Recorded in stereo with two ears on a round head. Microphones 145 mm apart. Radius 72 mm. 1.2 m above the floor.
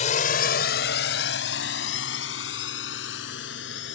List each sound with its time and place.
0.0 s a drone: 45° left (ahead or behind); by 4.0 s 80° left